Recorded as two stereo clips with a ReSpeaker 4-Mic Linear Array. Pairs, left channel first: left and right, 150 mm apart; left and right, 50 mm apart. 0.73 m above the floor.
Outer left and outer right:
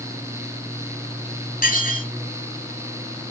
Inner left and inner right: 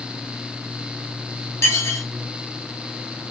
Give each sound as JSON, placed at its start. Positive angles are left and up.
{"t": 1.6, "sound": "dishes clattering", "side_deg": 85, "distance_m": 4.0}